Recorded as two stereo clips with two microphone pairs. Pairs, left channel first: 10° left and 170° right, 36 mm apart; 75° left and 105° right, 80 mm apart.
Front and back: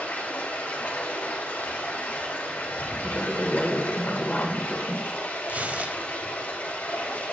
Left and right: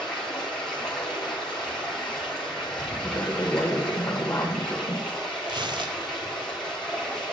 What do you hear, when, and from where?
0.0 s running water: 10° right, 5 m
3.0 s a woman speaking: 35° left, 1.4 m
5.5 s tearing paper: 120° right, 0.8 m